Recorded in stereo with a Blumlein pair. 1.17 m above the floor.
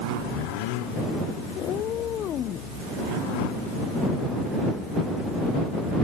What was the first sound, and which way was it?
A cat meowing, 30° left.